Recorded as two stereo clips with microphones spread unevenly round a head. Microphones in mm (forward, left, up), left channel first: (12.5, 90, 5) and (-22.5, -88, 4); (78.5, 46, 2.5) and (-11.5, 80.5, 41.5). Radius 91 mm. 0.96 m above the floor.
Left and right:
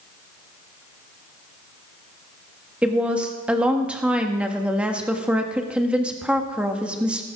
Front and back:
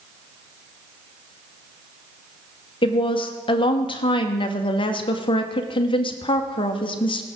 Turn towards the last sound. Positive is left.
turn(degrees=-15)